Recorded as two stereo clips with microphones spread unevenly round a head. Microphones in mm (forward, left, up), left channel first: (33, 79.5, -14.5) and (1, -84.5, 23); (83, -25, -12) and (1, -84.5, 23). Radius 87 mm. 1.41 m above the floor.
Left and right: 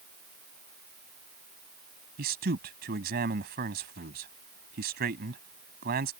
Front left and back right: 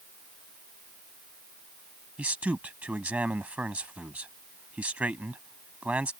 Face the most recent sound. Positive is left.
turn(degrees=-70)